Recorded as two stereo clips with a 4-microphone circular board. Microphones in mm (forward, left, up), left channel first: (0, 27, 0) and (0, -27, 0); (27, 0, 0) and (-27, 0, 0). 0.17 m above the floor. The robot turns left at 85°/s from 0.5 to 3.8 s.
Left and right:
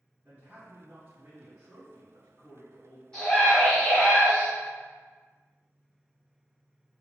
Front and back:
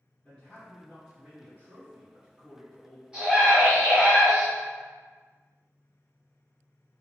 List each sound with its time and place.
0.2 s a man speaking: 65° right, 1.9 m; by 3.0 s 80° left, 1.9 m
3.1 s a scream: 140° left, 1.7 m; by 4.5 s 80° left, 1.7 m